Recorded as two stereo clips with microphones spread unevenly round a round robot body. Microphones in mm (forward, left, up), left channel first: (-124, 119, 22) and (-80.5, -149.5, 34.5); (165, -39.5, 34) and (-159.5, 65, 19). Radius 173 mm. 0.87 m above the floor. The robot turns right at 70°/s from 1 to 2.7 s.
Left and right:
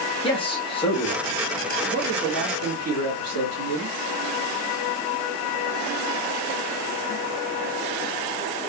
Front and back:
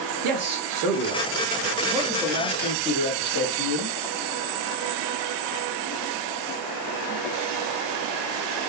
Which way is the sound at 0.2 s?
165° left.